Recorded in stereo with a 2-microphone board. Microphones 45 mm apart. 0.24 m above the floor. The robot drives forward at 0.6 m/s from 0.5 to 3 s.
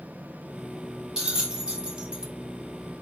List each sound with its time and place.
1.2 s a bell: 15° right (ahead or behind), 1.5 m; by 2.3 s 30° right (ahead or behind), 0.9 m